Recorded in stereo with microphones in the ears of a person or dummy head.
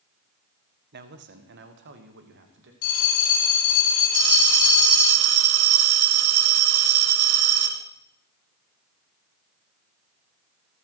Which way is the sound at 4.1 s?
75° right (ahead or behind).